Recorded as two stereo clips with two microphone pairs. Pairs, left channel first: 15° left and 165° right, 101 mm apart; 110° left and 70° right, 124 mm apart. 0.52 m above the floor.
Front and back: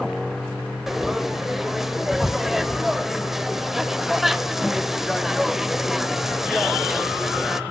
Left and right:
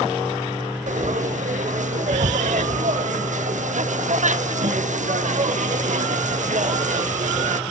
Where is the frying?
75° right, 0.5 m.